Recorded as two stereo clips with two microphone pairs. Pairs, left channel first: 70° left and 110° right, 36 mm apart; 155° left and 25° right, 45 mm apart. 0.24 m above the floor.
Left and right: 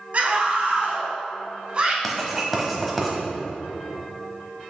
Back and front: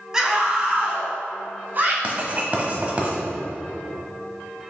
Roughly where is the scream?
Right.